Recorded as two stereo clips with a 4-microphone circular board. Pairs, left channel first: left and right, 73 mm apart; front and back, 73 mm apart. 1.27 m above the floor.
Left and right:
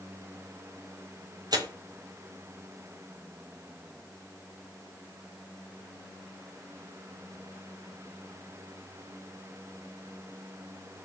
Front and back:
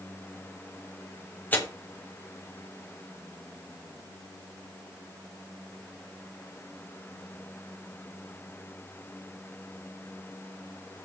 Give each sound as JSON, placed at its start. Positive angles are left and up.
{"t": 1.5, "sound": "tearing paper", "azimuth_deg": -65, "distance_m": 4.0}